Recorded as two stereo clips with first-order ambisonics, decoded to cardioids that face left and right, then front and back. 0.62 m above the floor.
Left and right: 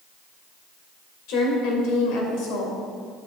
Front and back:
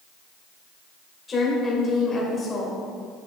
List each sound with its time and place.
1.3 s a woman speaking: 70° left, 2 m